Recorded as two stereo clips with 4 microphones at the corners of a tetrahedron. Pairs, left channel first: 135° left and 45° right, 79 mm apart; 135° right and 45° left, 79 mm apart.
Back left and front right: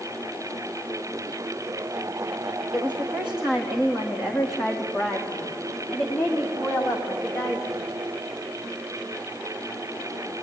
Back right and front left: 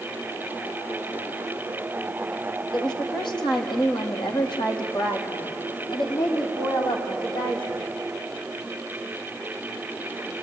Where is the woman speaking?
120° right, 5 m; by 7.9 s 145° right, 6.5 m.